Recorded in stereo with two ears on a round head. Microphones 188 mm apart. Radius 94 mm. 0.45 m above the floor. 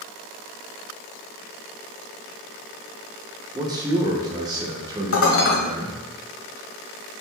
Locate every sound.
3.5 s a man speaking: 20° right (ahead or behind), 0.7 m
5.1 s dishes clattering: 70° left (ahead or behind), 1.3 m